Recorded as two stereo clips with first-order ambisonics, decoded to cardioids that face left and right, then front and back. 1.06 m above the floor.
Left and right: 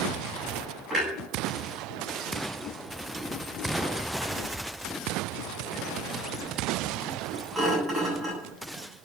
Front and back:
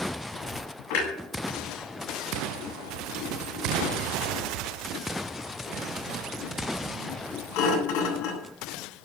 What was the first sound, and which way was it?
A clunk, 15° right.